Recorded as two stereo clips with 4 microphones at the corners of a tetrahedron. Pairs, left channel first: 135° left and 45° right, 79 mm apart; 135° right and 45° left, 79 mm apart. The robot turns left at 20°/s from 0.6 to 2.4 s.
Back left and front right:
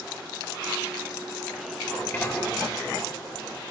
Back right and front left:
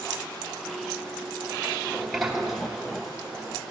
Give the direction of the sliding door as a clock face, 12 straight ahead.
7 o'clock.